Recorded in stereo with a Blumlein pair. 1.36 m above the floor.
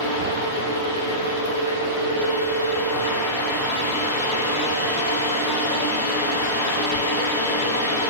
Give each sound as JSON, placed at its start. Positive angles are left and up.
{"t": 0.0, "sound": "a fan", "azimuth_deg": 65, "distance_m": 1.4}